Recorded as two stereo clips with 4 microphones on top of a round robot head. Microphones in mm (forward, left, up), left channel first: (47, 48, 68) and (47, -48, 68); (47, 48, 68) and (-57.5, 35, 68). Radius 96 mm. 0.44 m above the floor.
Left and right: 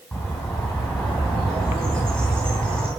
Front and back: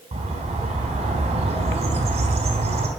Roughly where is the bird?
Behind.